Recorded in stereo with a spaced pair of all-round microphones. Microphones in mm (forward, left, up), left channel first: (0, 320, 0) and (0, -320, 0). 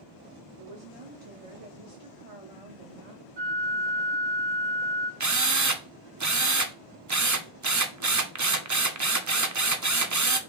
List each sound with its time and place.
0.6 s a woman speaking: 55° right (ahead or behind), 1.0 m
3.4 s a flute: 70° right (ahead or behind), 1.8 m
5.2 s a drill: 30° right (ahead or behind), 0.5 m